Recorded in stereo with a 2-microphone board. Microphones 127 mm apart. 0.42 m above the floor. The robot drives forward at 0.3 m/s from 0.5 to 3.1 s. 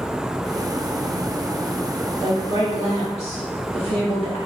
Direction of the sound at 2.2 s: 50° right (ahead or behind).